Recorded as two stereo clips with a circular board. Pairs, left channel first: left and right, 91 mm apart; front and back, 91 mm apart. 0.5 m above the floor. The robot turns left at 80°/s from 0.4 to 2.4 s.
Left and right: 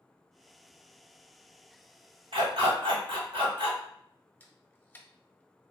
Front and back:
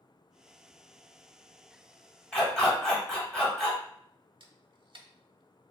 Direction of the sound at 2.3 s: 75° right.